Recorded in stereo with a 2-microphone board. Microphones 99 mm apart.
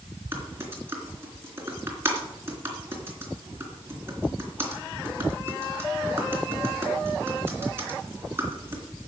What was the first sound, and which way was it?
Typing on a keyboard, 25° right (ahead or behind).